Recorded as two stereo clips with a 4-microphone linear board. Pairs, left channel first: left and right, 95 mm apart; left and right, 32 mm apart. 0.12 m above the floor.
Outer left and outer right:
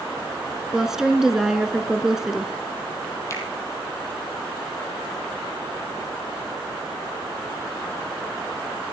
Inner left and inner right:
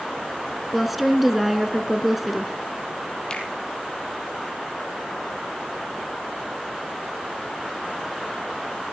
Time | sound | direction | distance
0.7 | a woman speaking | 5° right (ahead or behind) | 1.5 m
3.3 | a finger snap | 35° left (ahead or behind) | 3 m